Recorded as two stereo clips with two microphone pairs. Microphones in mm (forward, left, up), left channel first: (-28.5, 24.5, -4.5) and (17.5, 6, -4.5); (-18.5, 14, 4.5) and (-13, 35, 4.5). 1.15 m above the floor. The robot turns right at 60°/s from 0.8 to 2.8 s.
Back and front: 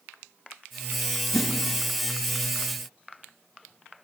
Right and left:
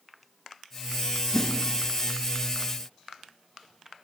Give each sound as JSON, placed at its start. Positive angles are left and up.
{"t": 1.3, "sound": "a whoosh", "azimuth_deg": 175, "distance_m": 0.7}